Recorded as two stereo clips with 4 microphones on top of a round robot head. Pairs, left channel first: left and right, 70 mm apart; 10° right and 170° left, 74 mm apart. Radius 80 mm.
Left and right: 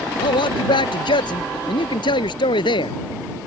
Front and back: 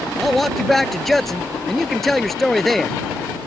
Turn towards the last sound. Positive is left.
turn(degrees=80)